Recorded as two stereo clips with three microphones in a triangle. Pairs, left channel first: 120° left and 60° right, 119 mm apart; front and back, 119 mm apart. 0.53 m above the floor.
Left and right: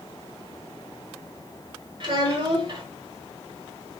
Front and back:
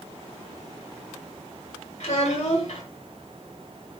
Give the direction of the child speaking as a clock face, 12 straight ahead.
1 o'clock.